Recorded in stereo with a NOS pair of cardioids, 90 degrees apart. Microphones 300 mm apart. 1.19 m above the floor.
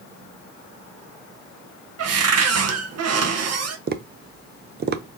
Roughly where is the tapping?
Ahead right.